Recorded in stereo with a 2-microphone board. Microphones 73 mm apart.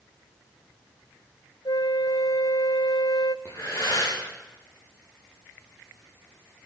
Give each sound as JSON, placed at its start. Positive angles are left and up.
{"t": 1.6, "sound": "a flute", "side_deg": 75, "distance_m": 0.5}
{"t": 3.5, "sound": "breathing", "side_deg": 40, "distance_m": 9.5}